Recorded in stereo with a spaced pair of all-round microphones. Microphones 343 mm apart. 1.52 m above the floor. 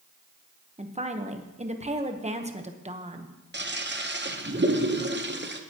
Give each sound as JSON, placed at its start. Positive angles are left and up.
{"t": 0.8, "sound": "a woman speaking", "side_deg": -20, "distance_m": 1.0}
{"t": 3.5, "sound": "a toilet flushing", "side_deg": -30, "distance_m": 0.8}